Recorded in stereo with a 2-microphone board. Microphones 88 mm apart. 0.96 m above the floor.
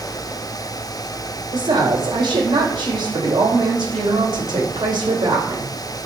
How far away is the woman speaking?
About 4.5 m.